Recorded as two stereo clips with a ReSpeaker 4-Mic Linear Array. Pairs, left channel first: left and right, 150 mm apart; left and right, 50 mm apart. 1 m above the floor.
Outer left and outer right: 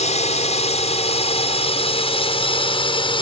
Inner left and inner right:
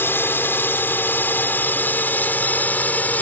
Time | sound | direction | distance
0.0 | a drone | 50° left (ahead or behind) | ?